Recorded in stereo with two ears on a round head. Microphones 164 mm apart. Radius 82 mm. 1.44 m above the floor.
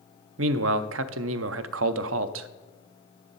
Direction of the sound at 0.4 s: 80° right.